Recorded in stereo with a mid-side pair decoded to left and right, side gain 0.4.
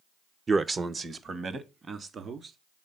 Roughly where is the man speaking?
Ahead right.